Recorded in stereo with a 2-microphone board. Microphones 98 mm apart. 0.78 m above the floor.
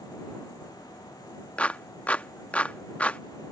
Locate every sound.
1.6 s a clap: 15° left (ahead or behind)